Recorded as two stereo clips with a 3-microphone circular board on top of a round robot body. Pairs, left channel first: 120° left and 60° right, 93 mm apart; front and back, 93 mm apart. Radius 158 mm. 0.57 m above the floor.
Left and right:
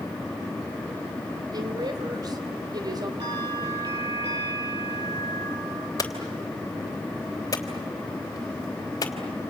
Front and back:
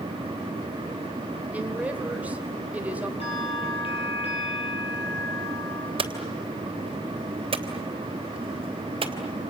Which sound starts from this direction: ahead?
A bell, at 3.2 s.